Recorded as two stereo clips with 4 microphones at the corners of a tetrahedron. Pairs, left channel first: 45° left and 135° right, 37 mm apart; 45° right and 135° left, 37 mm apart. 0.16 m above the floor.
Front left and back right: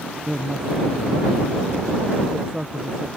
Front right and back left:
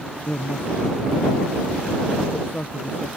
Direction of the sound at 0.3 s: 70° right.